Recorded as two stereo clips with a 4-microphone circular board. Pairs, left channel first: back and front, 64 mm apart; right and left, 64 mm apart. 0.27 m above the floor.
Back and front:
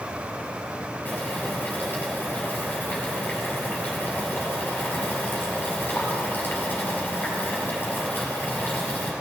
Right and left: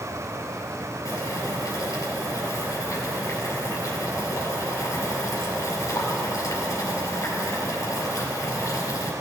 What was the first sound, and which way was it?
Boiling, 120° right.